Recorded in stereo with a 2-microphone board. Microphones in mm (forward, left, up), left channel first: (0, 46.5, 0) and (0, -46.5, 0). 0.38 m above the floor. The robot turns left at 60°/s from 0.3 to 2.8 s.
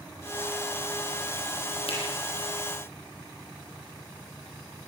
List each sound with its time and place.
1.9 s a finger snap: 80° left, 8 m; by 2.0 s 70° left (ahead or behind), 8 m